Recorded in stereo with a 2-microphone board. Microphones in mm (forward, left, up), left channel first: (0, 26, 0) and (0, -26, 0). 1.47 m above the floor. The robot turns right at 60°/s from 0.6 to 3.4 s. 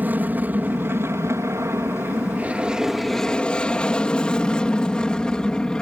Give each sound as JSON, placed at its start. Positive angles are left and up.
{"t": 0.0, "sound": "an aircraft", "side_deg": -35}